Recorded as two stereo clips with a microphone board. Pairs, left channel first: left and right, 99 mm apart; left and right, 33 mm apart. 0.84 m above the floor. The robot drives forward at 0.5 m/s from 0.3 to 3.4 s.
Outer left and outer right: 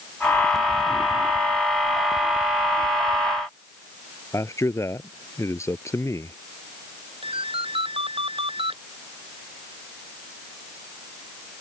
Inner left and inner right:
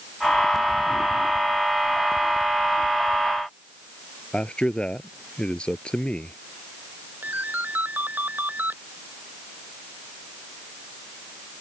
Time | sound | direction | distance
4.3 | a man speaking | 30° left (ahead or behind) | ?
7.2 | a ringtone | 65° right (ahead or behind) | ?